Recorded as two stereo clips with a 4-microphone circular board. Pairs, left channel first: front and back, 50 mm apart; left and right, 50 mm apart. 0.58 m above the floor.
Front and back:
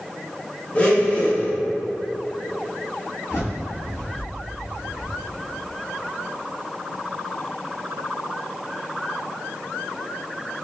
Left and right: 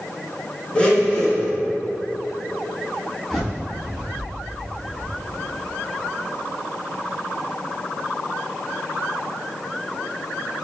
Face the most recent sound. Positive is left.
turn(degrees=5)